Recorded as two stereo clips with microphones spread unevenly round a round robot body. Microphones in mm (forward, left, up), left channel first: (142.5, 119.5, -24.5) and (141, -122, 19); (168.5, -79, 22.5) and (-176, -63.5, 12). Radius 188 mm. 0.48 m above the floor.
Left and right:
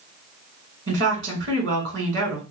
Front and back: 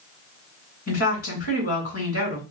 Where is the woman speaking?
50° right, 3 m.